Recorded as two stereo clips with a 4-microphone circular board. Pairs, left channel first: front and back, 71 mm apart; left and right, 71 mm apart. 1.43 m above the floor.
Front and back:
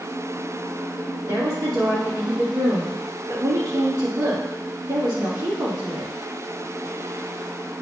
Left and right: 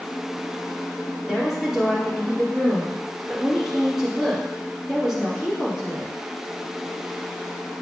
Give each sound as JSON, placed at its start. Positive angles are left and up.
{"t": 1.3, "sound": "a woman speaking", "azimuth_deg": -170, "distance_m": 2.5}